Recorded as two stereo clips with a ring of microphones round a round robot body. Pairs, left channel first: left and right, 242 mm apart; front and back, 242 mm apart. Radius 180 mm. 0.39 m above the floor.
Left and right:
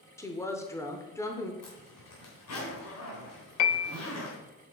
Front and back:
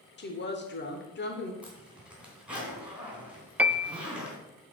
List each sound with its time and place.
0.2 s a woman speaking: 15° left, 1.1 m
1.6 s a zipper: 95° left, 3.5 m
3.6 s a piano: 95° left, 0.5 m